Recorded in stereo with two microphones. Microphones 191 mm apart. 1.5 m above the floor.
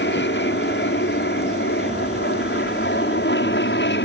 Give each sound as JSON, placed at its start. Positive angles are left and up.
{"t": 0.0, "sound": "an aircraft", "side_deg": 70}